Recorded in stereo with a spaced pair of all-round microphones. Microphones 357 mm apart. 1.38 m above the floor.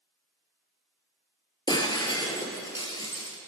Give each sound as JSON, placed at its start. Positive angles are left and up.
{"t": 1.7, "sound": "breaking glass", "side_deg": 10, "distance_m": 2.5}